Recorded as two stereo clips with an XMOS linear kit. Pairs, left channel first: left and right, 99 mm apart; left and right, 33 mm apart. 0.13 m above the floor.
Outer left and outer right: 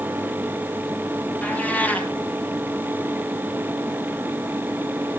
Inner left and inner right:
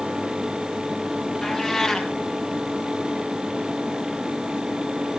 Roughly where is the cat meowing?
Centre.